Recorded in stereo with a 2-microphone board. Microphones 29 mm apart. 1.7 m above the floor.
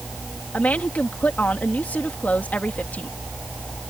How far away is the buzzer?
I don't hear a buzzer.